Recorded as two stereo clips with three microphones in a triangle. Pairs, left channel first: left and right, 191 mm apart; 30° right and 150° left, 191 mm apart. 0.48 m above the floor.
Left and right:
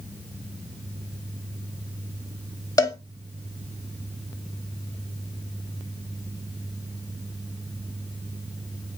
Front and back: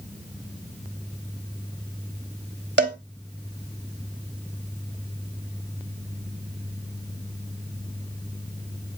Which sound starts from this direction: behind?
A cowbell, at 2.8 s.